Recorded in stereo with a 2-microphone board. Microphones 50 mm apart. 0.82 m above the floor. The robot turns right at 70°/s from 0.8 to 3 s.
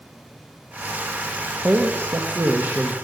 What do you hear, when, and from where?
1.6 s a man speaking: 120° right, 1.1 m; by 2.9 s 30° right, 1.1 m